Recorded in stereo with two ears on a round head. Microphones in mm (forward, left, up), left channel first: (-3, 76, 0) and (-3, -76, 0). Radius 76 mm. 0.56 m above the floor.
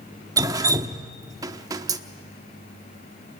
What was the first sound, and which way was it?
Dripping, 20° right (ahead or behind).